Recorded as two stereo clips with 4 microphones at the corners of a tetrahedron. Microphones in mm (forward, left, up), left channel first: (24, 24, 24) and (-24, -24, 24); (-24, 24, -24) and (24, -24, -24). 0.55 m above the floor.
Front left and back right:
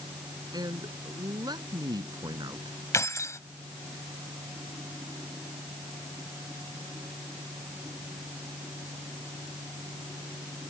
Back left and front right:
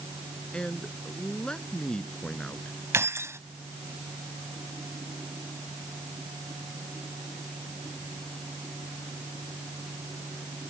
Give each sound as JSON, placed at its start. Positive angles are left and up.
{"t": 0.5, "sound": "a man speaking", "azimuth_deg": -145}
{"t": 2.9, "sound": "keys jangling", "azimuth_deg": 5}